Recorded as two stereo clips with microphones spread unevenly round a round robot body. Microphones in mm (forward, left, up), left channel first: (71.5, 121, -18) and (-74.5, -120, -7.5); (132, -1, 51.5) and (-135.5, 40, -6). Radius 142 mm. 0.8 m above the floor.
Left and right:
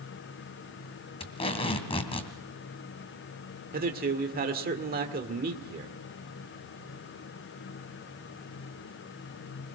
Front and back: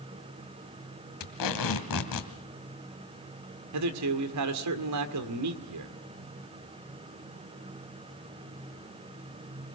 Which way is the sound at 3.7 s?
Straight behind.